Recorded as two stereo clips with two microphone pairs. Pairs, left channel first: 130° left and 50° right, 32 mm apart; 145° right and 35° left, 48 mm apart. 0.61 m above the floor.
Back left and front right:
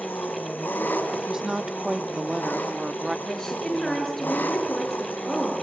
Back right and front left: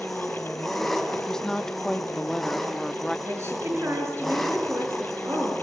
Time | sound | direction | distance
0.0 | an engine running | 130° left | 3.5 m
1.1 | a woman speaking | 95° right | 0.6 m
3.3 | a woman speaking | 60° left | 9 m